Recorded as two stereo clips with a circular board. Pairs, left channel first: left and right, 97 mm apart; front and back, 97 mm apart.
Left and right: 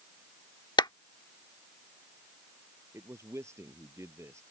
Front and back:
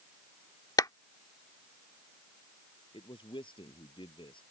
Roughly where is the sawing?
No sawing in this recording.